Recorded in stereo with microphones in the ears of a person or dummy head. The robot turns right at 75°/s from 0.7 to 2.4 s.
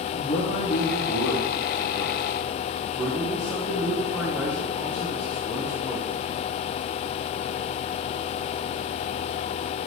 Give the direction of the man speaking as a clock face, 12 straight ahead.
11 o'clock.